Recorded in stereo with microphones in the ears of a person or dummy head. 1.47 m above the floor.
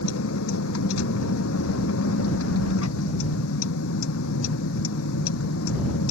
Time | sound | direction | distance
0.0 | a vehicle | 80° left | ?